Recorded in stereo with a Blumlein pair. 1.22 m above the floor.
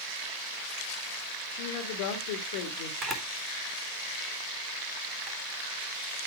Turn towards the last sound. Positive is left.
turn(degrees=-20)